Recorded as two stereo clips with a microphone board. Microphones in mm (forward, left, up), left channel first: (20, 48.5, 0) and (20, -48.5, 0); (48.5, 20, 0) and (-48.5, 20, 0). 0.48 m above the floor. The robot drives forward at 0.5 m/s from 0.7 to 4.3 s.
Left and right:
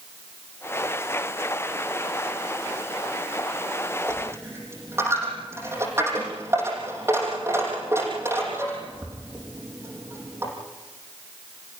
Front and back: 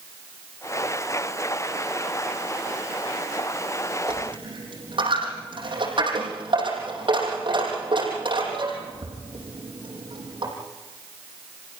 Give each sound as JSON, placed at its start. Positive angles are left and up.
{"t": 4.1, "sound": "a dropped coin", "azimuth_deg": -150, "distance_m": 5.5}